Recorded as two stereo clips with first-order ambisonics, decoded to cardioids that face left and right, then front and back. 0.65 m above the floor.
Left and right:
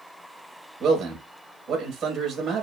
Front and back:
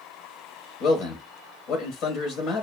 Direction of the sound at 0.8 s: 30° right.